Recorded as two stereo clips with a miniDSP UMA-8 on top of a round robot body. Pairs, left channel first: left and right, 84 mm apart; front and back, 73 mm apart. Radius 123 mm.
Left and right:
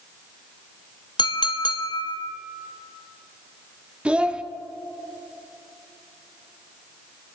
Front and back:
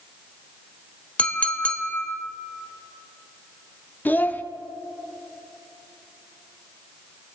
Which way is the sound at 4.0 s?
25° right.